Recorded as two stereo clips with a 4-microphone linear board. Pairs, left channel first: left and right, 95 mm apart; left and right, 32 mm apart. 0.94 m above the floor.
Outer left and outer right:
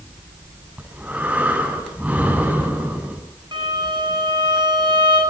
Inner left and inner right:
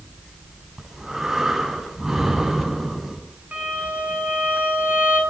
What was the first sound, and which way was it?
Breathing, 20° right (ahead or behind).